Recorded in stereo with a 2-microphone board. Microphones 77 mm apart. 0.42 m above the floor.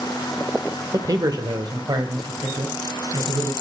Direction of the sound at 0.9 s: 45° right (ahead or behind).